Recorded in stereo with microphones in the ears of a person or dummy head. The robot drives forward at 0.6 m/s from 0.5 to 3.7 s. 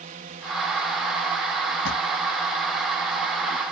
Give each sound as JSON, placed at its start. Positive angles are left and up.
{"t": 0.0, "sound": "a drone", "side_deg": -40}
{"t": 1.9, "sound": "a drawer", "side_deg": 65}